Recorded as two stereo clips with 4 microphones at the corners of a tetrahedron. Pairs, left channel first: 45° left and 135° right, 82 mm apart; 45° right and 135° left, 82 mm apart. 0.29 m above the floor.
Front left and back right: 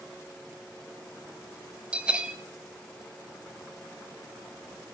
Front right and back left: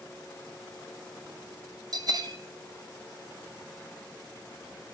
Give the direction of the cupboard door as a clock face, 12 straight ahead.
No cupboard door in this recording.